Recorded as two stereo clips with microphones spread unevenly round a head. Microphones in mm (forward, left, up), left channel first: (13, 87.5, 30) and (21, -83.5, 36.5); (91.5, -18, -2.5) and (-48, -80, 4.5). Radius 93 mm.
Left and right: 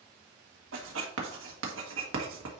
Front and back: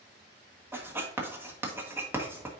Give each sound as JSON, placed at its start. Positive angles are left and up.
{"t": 0.7, "sound": "writing", "azimuth_deg": -80, "distance_m": 1.6}